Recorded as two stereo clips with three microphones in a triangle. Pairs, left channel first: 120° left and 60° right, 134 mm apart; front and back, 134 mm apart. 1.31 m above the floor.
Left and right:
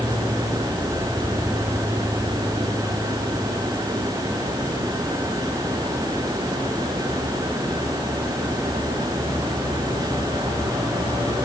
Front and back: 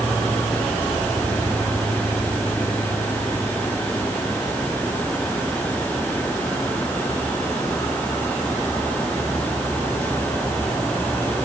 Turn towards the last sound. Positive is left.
No sound to turn to.